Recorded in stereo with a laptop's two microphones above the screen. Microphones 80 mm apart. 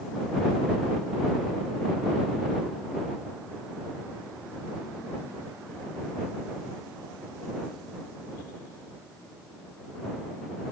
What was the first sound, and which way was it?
Only background noise.